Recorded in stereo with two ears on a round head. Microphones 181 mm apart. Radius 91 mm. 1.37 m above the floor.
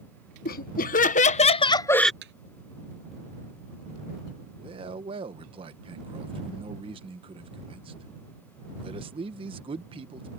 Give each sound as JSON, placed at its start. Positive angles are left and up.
{"t": 0.5, "sound": "laughter", "side_deg": 50}
{"t": 2.2, "sound": "a thud", "side_deg": -60}
{"t": 4.6, "sound": "a man speaking", "side_deg": -25}